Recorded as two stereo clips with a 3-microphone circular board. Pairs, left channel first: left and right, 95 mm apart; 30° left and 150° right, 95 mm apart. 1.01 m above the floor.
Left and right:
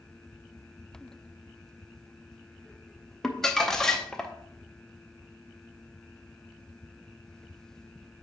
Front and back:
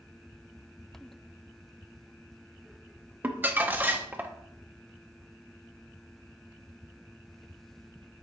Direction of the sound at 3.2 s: 170° left.